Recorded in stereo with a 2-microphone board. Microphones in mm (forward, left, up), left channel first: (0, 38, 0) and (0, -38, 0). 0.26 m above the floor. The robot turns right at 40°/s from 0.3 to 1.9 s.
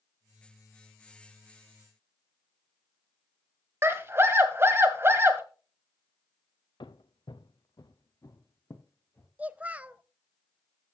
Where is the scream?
35° right (ahead or behind), 1.8 m.